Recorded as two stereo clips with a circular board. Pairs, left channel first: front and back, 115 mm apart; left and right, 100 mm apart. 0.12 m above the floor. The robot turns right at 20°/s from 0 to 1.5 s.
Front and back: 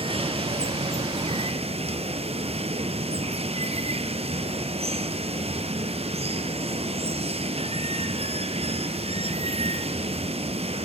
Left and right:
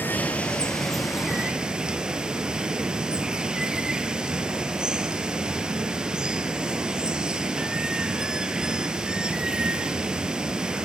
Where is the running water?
160° left, 1.7 m; by 10.9 s 170° right, 1.7 m.